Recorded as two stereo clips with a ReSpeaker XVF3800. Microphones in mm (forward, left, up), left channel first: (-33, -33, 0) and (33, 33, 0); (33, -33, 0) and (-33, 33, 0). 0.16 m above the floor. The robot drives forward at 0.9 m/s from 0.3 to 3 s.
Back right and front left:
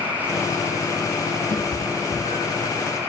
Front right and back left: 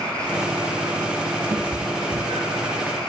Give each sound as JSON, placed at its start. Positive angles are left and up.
{"t": 1.5, "sound": "a cat meowing", "azimuth_deg": -165, "distance_m": 1.5}